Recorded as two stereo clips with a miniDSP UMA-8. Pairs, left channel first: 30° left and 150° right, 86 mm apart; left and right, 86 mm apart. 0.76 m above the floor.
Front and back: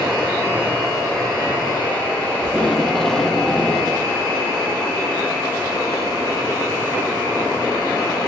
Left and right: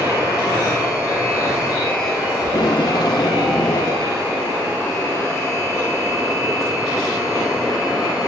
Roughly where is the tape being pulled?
Behind left.